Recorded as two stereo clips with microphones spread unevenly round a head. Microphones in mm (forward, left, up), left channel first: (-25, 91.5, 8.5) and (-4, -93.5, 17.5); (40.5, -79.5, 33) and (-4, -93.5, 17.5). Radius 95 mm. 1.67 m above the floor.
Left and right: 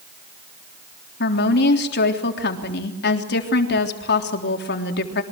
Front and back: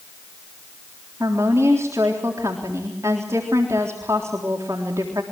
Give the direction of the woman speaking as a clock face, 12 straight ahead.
8 o'clock.